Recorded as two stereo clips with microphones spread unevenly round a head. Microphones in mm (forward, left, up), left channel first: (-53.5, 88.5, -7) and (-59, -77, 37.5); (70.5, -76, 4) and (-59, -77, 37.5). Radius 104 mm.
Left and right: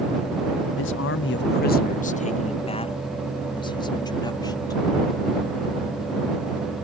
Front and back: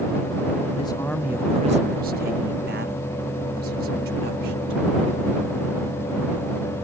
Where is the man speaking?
65° left; by 5.4 s 160° left.